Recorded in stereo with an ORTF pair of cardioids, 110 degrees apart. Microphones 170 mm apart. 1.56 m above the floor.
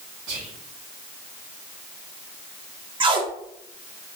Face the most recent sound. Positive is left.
turn(degrees=-30)